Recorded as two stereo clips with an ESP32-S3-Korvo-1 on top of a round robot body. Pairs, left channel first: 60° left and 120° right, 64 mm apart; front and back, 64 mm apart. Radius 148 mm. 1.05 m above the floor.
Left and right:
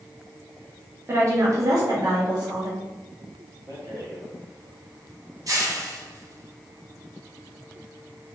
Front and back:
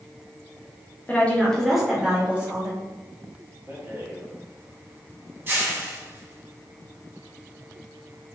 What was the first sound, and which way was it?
A woman speaking, 65° right.